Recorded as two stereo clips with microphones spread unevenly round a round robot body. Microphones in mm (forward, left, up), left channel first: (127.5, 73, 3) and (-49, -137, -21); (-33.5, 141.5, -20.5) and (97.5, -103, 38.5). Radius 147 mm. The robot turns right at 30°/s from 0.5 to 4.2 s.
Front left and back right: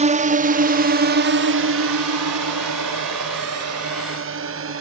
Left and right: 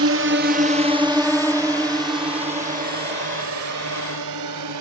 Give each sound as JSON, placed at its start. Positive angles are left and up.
{"t": 0.0, "sound": "a drone", "azimuth_deg": -85}